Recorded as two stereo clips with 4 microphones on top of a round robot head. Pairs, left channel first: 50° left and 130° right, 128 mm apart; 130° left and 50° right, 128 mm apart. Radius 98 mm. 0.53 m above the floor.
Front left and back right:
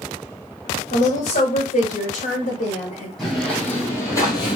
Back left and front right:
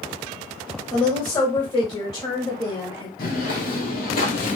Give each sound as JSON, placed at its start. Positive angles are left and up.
{"t": 0.9, "sound": "a woman speaking", "azimuth_deg": 70, "distance_m": 1.7}
{"t": 3.2, "sound": "footsteps", "azimuth_deg": 135, "distance_m": 1.5}